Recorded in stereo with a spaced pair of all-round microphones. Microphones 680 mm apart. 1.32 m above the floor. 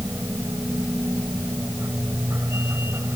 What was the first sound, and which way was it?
A machine running, 5° right (ahead or behind).